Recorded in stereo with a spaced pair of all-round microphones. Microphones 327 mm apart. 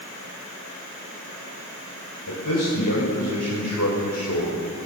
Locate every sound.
2.3 s a man speaking: 80° left, 5.5 m; by 4.6 s 55° left (ahead or behind), 5 m